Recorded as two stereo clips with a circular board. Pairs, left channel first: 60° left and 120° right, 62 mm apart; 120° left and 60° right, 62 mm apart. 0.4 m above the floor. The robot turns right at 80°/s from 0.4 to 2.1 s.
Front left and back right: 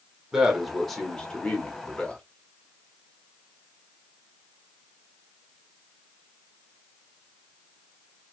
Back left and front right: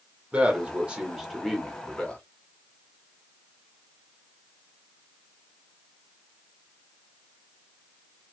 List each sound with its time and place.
0.3 s a man speaking: 55° right, 1.0 m; by 2.2 s 80° left, 1.0 m